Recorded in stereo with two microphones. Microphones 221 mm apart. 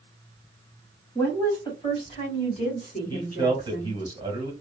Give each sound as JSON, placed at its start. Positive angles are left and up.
{"t": 1.1, "sound": "a woman speaking", "side_deg": 10, "distance_m": 1.6}
{"t": 3.1, "sound": "a man speaking", "side_deg": -20, "distance_m": 1.1}